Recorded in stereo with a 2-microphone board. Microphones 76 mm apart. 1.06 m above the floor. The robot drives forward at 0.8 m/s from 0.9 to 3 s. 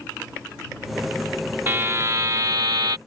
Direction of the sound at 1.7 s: 30° right (ahead or behind).